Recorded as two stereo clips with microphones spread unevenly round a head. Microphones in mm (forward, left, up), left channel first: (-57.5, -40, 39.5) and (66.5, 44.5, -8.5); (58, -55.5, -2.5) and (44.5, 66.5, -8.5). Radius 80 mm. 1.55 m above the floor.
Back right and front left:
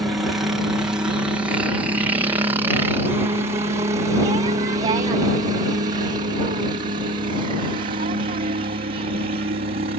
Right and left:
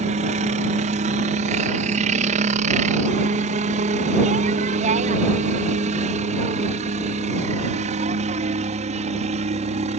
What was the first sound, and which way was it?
A helicopter, 110° left.